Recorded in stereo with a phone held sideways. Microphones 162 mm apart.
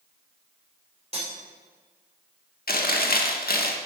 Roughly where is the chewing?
Left.